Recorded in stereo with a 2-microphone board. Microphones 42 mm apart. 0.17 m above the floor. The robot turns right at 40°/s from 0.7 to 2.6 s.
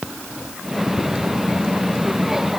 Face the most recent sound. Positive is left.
No sound to turn to.